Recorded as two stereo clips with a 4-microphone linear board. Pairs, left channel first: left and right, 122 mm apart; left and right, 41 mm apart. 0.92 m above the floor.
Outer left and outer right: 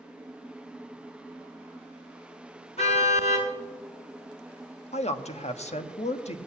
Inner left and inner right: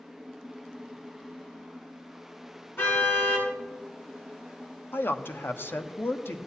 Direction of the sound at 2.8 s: 60° left (ahead or behind).